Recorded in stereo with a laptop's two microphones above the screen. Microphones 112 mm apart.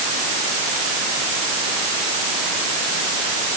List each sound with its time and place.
Only background noise.